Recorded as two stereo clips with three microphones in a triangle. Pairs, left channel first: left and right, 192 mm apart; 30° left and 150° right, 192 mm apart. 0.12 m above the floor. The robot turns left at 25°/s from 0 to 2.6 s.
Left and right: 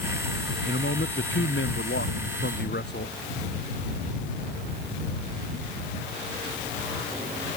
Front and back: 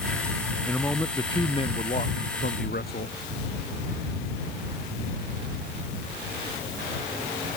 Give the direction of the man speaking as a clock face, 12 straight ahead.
8 o'clock.